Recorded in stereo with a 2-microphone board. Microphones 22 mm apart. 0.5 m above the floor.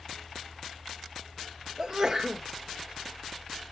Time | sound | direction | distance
1.8 | a sneeze | 15° right (ahead or behind) | 1.3 m